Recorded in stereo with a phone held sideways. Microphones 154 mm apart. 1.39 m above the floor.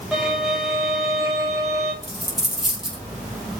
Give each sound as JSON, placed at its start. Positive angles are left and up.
{"t": 0.1, "sound": "a violin", "side_deg": 0, "distance_m": 5.0}
{"t": 2.0, "sound": "a dropped coin", "side_deg": 0, "distance_m": 6.5}